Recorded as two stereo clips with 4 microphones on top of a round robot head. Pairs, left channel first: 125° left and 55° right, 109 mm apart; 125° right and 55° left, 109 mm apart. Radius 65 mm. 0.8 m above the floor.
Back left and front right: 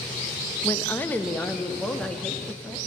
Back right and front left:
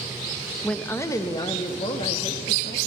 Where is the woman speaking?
160° left, 0.7 m; by 2.8 s 155° right, 1.9 m.